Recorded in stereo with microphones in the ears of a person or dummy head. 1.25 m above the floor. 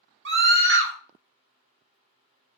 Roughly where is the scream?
Right.